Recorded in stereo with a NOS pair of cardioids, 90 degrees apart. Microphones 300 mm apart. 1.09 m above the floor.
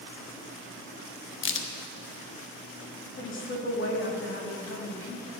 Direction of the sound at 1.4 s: 40° left.